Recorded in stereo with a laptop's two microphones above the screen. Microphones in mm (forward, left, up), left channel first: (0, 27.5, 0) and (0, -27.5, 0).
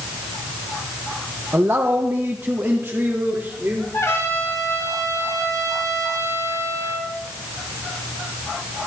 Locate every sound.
1.5 s a man speaking: 45° right (ahead or behind), 0.9 m; by 3.8 s 35° right (ahead or behind), 3 m
3.9 s a trumpet: 75° left (ahead or behind), 3.5 m